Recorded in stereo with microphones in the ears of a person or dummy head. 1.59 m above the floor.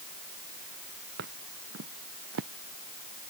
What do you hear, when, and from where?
1.2 s footsteps: 60° right (ahead or behind); by 2.5 s 65° right (ahead or behind)